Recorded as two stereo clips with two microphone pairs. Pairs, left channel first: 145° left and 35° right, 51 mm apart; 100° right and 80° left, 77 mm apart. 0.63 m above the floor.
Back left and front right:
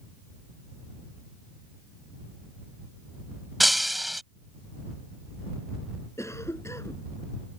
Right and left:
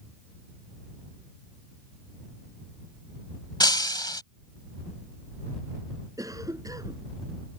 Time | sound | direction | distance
3.6 | breaking glass | 120° right | ?
6.2 | a cough | 125° left | ?